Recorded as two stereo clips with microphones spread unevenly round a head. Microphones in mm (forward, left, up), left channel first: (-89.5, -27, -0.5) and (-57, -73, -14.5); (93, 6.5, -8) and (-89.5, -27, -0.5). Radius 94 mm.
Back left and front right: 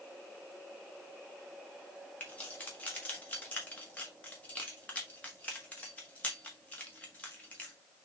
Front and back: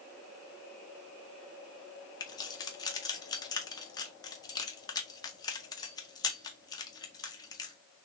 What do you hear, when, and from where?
2.2 s keys jangling: 80° left, 0.9 m